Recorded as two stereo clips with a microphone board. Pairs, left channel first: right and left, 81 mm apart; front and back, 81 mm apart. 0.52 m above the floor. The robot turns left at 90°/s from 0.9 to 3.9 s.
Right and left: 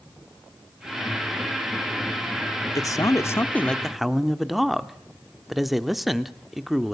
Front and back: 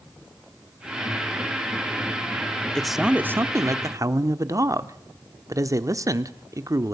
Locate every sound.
2.8 s a man speaking: 80° right, 0.9 m; by 6.9 s straight behind, 0.9 m